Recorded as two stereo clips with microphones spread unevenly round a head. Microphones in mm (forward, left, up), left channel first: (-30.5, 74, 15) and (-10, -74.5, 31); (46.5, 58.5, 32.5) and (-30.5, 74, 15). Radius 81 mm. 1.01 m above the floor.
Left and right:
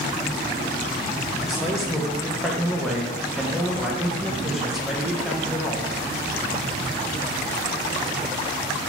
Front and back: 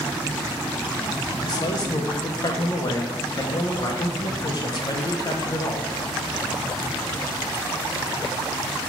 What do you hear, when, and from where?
1.4 s a man speaking: 15° left, 0.7 m